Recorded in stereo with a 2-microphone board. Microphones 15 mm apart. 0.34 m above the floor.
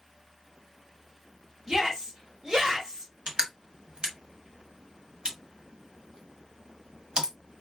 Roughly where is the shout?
Right.